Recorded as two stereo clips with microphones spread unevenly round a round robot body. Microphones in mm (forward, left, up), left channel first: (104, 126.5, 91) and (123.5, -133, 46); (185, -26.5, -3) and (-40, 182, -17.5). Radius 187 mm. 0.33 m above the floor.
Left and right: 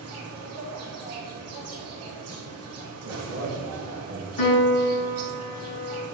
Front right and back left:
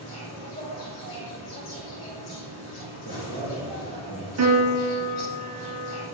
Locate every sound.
0.0 s an insect: 110° right, 4 m
3.0 s a man speaking: 105° right, 3.5 m
4.4 s a piano: 100° left, 2.5 m